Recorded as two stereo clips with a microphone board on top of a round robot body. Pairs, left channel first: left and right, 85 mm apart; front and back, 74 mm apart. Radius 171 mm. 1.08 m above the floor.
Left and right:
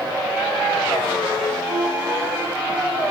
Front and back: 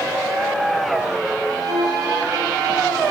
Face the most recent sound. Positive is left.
turn(degrees=-160)